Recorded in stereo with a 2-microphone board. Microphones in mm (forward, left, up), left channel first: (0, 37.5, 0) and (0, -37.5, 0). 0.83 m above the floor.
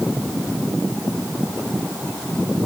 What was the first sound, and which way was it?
Only background noise.